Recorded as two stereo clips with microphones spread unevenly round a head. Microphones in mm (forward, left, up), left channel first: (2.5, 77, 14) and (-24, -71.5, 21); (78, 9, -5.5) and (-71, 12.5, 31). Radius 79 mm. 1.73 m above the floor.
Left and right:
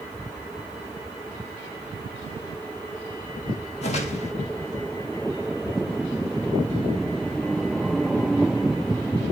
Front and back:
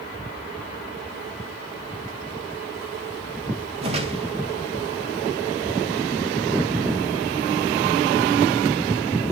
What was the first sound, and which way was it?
A whoosh, 130° left.